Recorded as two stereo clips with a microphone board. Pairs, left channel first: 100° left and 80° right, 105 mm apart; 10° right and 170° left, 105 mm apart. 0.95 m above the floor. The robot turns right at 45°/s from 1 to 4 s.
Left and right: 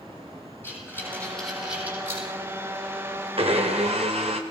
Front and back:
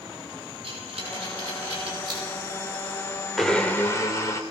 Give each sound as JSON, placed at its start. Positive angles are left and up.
{"t": 0.6, "sound": "breathing", "azimuth_deg": 170, "distance_m": 9.0}
{"t": 3.4, "sound": "a blender", "azimuth_deg": -100, "distance_m": 3.0}